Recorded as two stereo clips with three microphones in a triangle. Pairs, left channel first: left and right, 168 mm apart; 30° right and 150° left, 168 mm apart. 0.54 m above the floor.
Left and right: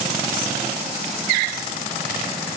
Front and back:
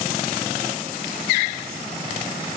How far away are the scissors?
No scissors in this recording.